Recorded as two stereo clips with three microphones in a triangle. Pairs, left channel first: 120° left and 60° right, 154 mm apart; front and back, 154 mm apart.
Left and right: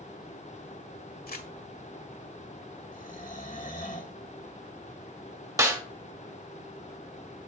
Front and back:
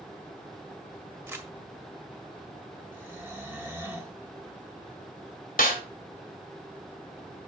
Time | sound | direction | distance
1.3 | crumpling | 105° left | 1.6 m
2.9 | snoring | 105° left | 1.7 m
5.6 | a snare drum | 5° left | 2 m